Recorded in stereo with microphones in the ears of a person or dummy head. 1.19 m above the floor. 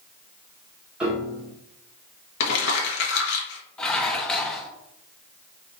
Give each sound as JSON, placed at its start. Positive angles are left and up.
{"t": 1.0, "sound": "a piano", "side_deg": -5, "distance_m": 1.3}
{"t": 2.4, "sound": "crumpling", "side_deg": 65, "distance_m": 1.3}
{"t": 3.8, "sound": "dishes clattering", "side_deg": 5, "distance_m": 0.6}